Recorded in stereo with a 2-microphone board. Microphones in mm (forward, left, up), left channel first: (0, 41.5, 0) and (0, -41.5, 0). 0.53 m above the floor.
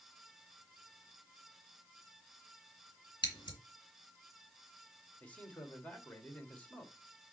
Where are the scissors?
70° left (ahead or behind), 2 m.